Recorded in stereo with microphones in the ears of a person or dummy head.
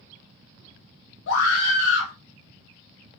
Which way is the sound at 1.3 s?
75° left (ahead or behind).